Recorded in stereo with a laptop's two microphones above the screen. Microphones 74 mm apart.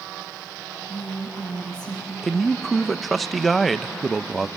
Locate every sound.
0.9 s a woman speaking: 65° left (ahead or behind), 4.5 m
2.2 s a man speaking: centre (ahead or behind), 0.5 m